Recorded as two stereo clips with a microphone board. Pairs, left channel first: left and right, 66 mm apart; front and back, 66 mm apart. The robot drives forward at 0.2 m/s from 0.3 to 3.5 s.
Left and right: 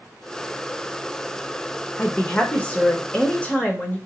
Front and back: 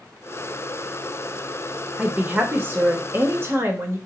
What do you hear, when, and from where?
2.0 s a woman speaking: 130° left, 0.8 m; by 4.0 s 150° left, 1.0 m